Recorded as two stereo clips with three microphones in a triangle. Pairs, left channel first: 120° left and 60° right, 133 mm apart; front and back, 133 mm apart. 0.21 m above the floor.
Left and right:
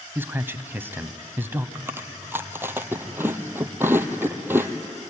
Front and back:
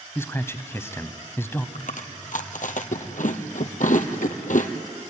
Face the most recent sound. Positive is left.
turn(degrees=15)